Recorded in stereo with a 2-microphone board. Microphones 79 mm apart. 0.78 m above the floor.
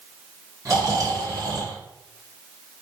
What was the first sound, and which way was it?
Snoring, 45° right (ahead or behind).